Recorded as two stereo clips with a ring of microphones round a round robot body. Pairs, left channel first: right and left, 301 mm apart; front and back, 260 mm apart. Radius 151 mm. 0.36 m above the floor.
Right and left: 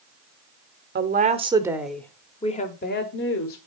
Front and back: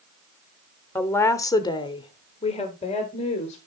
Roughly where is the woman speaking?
Left.